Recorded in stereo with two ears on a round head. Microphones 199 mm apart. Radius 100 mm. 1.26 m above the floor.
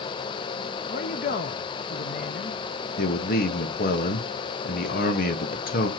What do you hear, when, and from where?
0.9 s a man speaking: 35° left (ahead or behind), 0.6 m
3.0 s a man speaking: 40° left (ahead or behind), 1.6 m